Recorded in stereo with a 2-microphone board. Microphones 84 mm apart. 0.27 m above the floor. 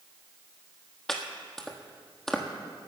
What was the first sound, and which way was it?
Chopping, 5° left (ahead or behind).